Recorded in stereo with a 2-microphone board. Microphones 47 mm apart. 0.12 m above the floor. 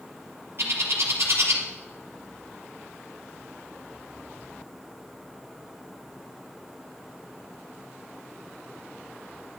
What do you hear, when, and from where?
0.6 s a bird: 60° right (ahead or behind), 3 m